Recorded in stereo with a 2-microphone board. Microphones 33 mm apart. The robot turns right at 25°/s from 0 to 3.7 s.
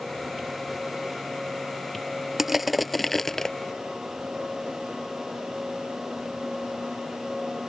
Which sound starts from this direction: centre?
Crushing, at 2.4 s.